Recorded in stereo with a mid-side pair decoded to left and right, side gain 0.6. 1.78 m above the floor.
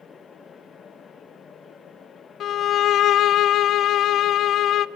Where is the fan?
35° left, 2.0 m.